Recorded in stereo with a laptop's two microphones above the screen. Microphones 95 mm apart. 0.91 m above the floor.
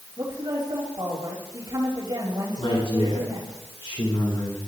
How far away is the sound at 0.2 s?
About 5 m.